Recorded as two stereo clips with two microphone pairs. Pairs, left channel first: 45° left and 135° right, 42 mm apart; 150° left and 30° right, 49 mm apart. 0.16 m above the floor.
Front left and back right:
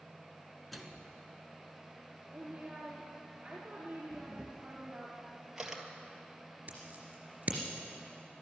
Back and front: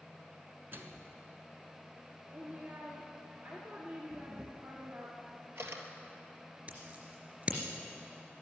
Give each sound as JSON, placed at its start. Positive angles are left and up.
{"t": 0.7, "sound": "a microwave", "azimuth_deg": -45, "distance_m": 1.3}
{"t": 2.3, "sound": "a woman speaking", "azimuth_deg": -65, "distance_m": 2.5}
{"t": 4.1, "sound": "a camera shutter", "azimuth_deg": -55, "distance_m": 1.7}
{"t": 6.7, "sound": "scissors", "azimuth_deg": -85, "distance_m": 3.0}